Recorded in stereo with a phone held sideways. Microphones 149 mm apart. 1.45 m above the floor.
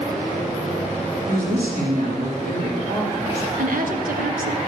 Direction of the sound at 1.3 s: 70° right (ahead or behind).